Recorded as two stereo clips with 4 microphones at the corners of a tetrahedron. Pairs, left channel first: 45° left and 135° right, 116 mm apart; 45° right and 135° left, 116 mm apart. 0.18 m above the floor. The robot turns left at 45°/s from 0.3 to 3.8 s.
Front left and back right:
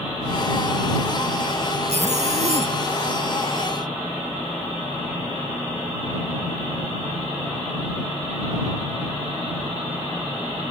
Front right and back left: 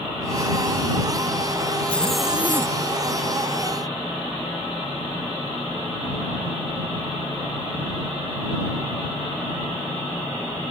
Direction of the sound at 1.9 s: 120° right.